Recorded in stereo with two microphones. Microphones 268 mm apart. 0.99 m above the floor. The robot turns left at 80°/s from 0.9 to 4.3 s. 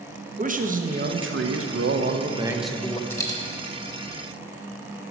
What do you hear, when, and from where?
0.4 s a man speaking: 40° right, 0.6 m; by 3.0 s 155° left, 0.6 m
3.1 s a dropped coin: 10° left (ahead or behind), 0.8 m; by 3.4 s 20° left (ahead or behind), 0.8 m